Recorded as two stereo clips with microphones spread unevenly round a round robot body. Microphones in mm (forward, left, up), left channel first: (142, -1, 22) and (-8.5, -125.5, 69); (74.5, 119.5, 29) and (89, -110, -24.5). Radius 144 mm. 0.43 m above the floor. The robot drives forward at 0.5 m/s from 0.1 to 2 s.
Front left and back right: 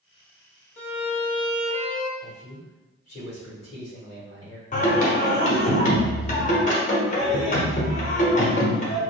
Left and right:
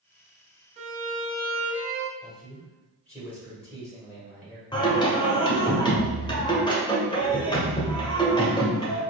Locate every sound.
0.8 s a violin: 20° right, 1.1 m; by 2.1 s 50° right, 0.6 m
2.2 s a man speaking: straight ahead, 1.6 m
4.7 s singing: 15° left, 1.2 m